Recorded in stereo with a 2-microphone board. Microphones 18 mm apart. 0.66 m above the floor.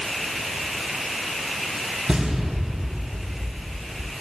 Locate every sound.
2.1 s an explosion: 75° right (ahead or behind), 3.5 m